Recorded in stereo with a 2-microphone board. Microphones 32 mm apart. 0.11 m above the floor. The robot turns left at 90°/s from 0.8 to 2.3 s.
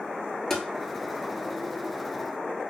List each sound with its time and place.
0.5 s tapping: 10° left (ahead or behind), 0.5 m